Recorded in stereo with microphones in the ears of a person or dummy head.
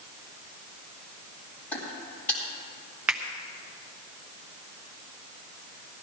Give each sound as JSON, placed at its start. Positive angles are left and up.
{"t": 1.7, "sound": "footsteps", "side_deg": 15, "distance_m": 2.5}
{"t": 3.1, "sound": "a finger snap", "side_deg": -10, "distance_m": 0.8}